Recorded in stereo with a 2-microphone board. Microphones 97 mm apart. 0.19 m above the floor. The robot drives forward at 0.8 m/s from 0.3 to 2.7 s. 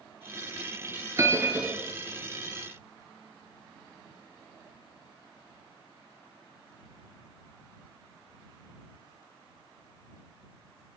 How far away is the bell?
About 0.6 m.